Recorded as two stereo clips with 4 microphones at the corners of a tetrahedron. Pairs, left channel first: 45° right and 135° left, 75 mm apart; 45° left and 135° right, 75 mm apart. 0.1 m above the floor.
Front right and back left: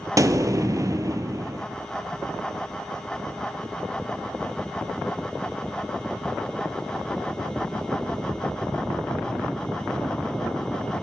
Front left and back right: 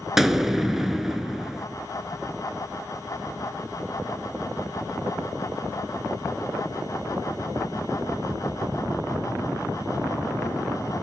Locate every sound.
0.2 s an explosion: 140° left, 0.6 m